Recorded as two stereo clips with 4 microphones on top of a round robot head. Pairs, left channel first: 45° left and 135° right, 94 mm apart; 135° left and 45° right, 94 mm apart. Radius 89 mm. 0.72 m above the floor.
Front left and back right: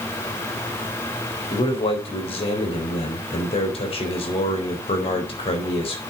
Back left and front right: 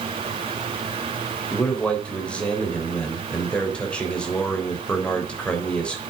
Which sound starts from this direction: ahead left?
A man speaking, at 1.5 s.